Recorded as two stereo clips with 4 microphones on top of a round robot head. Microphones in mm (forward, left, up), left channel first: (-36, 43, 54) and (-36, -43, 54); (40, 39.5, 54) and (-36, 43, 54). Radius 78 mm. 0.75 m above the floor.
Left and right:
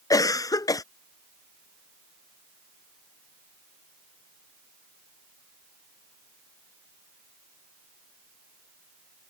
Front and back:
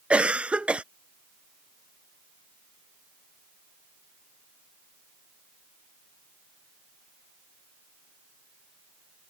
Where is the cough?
110° left.